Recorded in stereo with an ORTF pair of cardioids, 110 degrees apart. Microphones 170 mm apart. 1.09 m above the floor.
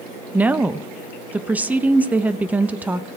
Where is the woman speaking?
10° right, 0.6 m.